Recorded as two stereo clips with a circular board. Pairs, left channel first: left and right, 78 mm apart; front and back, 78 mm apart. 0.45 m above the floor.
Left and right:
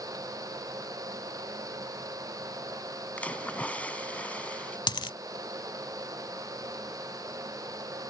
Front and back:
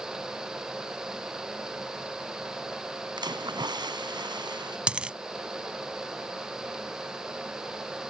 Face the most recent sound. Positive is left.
turn(degrees=105)